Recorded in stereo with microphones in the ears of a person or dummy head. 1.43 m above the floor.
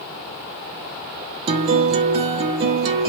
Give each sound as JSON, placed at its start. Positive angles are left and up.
{"t": 1.5, "sound": "a guitar", "side_deg": -35, "distance_m": 0.5}